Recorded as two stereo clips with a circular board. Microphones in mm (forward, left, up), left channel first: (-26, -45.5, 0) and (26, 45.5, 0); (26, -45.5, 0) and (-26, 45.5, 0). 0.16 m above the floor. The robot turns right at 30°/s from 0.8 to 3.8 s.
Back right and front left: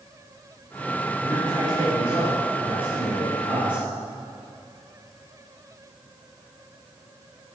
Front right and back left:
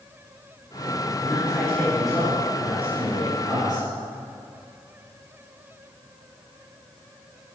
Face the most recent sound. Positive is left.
turn(degrees=85)